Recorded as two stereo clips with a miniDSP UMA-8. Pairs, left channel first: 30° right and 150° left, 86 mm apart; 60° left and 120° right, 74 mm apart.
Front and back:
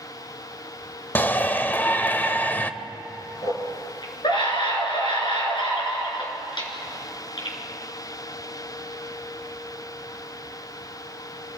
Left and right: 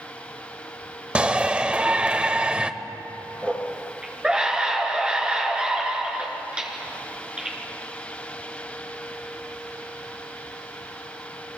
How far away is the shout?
About 0.9 m.